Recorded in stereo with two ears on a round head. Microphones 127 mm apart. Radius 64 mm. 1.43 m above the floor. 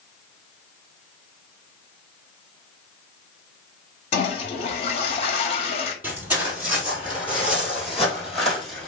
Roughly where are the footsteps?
Centre.